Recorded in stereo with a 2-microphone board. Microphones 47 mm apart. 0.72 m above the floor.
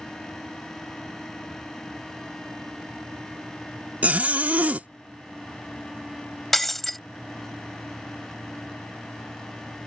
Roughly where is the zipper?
Right.